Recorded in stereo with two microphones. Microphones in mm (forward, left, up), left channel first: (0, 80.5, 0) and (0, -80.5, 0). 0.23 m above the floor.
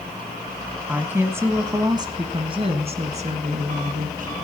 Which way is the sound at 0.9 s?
10° right (ahead or behind).